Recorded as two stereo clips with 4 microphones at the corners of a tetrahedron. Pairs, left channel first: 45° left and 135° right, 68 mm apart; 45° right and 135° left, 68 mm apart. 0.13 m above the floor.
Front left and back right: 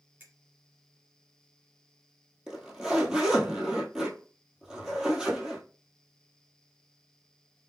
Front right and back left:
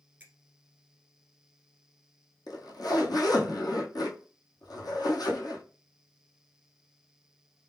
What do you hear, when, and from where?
0.2 s a finger snap: 175° right, 1.5 m
2.5 s a zipper: 55° right, 1.2 m